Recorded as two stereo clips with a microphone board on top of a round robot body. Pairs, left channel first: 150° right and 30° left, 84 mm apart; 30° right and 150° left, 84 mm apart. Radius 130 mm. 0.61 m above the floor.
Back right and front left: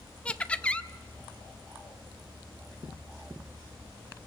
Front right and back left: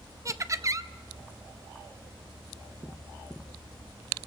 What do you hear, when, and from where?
0.2 s laughter: 140° left, 0.8 m